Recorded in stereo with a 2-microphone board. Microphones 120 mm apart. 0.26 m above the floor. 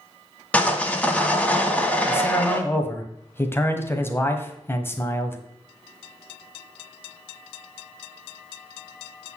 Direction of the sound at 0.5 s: 10° left (ahead or behind).